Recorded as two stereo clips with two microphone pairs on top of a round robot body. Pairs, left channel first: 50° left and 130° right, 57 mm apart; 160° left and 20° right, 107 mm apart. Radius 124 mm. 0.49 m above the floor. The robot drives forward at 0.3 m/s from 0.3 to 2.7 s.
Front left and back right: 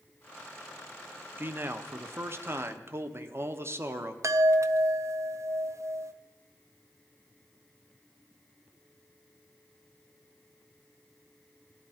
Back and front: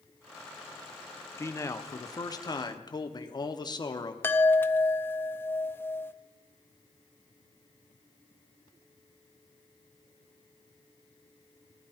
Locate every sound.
1.4 s a man speaking: 160° right, 1.0 m; by 4.1 s 170° right, 1.2 m
4.2 s a chime: 130° right, 0.7 m